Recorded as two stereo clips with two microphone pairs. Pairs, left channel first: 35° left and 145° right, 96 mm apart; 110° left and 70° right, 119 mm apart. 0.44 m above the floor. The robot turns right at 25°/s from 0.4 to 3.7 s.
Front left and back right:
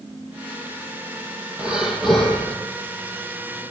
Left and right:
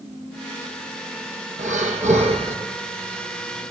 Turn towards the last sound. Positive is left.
turn(degrees=-10)